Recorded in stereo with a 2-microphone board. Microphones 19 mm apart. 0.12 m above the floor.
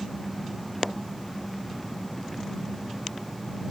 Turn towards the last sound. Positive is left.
turn(degrees=10)  # may be behind; listen again after turning